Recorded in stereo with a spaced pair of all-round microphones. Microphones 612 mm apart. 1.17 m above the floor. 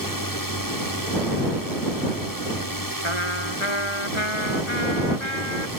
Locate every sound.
0.0 s a drone: 35° left (ahead or behind)
3.0 s a trumpet: 50° left (ahead or behind)